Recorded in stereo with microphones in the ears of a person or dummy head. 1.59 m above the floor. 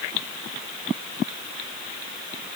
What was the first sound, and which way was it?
Only background noise.